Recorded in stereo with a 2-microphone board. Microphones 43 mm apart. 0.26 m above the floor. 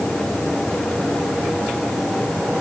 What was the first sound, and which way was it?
Only background noise.